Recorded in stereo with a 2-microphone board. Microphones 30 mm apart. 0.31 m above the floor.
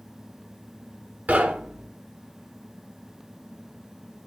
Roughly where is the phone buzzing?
No phone buzzing in this recording.